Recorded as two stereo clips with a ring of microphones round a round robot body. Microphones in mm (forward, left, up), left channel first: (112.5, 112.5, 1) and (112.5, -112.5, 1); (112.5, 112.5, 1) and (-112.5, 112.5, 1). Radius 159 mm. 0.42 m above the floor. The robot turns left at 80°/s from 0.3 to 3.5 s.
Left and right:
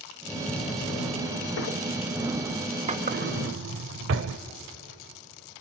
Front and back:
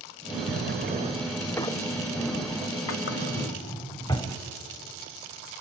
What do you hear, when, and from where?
0.5 s a drawer: 165° left, 1.0 m; by 4.4 s 75° right, 1.0 m